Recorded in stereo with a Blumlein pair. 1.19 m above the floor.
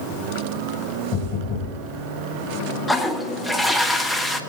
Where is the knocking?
40° left, 5.5 m.